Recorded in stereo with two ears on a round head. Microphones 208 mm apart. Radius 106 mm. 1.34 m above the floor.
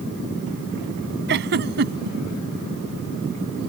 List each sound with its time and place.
1.3 s a giggle: 50° right (ahead or behind)